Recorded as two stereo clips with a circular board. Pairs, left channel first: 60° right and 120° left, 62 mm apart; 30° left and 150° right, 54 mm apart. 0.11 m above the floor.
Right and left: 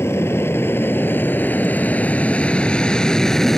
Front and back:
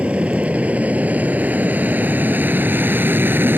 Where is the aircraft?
90° right; by 3.6 s 140° right.